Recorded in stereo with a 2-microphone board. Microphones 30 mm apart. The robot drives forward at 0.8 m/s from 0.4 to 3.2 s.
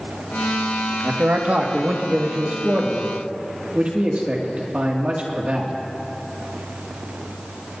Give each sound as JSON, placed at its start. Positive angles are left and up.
{"t": 1.0, "sound": "a man speaking", "side_deg": -65, "distance_m": 1.7}